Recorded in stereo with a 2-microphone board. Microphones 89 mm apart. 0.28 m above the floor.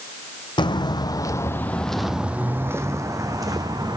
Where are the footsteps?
65° left (ahead or behind), 0.8 m; by 4.0 s 50° right (ahead or behind), 1.3 m.